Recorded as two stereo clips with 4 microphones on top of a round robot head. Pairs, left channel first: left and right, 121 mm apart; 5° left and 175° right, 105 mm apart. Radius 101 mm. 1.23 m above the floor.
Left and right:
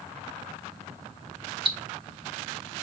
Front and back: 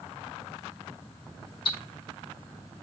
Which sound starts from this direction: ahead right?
Ticking, at 1.6 s.